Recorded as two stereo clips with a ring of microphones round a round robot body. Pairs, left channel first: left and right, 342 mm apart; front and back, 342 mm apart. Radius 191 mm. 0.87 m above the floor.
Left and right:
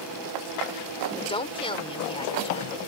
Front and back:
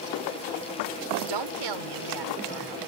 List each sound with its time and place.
1.1 s a woman speaking: 165° left